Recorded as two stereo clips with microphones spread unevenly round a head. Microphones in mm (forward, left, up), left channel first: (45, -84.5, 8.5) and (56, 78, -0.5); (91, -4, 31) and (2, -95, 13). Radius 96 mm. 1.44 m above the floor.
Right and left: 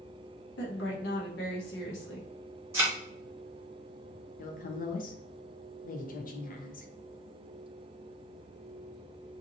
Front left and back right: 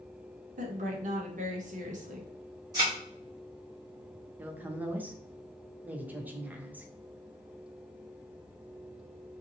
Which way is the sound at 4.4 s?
55° right.